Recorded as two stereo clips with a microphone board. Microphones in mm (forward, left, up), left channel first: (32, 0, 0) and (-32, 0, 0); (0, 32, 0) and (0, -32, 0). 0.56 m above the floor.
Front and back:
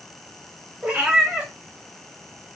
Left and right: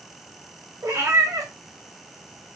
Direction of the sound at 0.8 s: 110° right.